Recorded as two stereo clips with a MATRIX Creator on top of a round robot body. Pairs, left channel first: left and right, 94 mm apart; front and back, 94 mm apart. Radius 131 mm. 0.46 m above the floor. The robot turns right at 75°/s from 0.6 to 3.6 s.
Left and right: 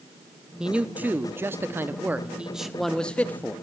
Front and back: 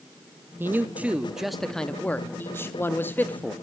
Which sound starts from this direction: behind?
A man speaking, at 0.6 s.